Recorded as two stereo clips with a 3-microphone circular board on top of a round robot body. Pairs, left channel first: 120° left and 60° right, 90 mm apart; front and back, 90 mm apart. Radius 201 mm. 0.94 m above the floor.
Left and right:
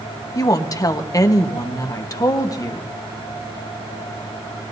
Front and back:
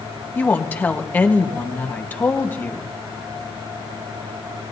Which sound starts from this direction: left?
A woman speaking, at 0.3 s.